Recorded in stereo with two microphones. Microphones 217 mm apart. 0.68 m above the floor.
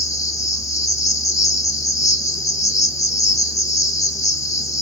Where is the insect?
15° left (ahead or behind), 0.8 m.